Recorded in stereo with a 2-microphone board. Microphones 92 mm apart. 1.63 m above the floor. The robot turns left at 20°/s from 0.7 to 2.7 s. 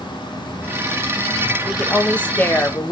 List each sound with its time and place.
0.0 s an insect: 105° right, 2.5 m; by 2.9 s 145° right, 2.5 m
1.6 s a woman speaking: 5° left (ahead or behind), 0.7 m; by 2.9 s 25° left (ahead or behind), 0.7 m